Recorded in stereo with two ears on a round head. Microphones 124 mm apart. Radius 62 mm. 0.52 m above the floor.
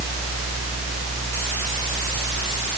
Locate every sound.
Only background noise.